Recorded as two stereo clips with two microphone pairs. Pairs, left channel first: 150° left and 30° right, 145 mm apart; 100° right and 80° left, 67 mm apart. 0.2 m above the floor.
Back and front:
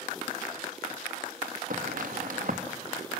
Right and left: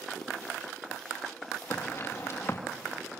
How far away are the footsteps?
About 2 m.